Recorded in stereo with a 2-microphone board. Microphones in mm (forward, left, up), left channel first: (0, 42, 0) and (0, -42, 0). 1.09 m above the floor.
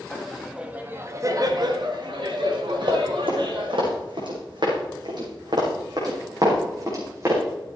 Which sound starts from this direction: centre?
Laughter, at 0.1 s.